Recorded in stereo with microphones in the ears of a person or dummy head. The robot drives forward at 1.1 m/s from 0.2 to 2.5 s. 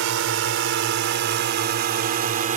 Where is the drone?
70° right (ahead or behind); by 2.6 s 40° right (ahead or behind).